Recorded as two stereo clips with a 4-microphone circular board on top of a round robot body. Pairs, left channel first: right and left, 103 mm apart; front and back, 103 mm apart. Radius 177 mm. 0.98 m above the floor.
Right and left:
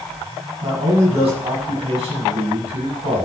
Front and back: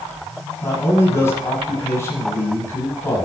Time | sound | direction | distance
0.6 | a man speaking | 65° left | 7.5 m